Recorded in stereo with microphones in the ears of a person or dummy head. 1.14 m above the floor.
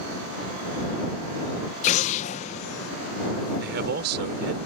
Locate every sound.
1.8 s an explosion: 35° left (ahead or behind)
3.6 s a man speaking: 60° right (ahead or behind)